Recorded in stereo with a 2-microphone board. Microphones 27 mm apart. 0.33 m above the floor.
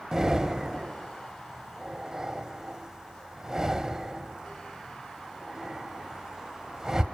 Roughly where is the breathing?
Centre.